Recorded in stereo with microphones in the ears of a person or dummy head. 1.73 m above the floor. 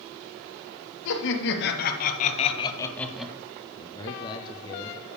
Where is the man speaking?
25° left (ahead or behind), 0.8 m.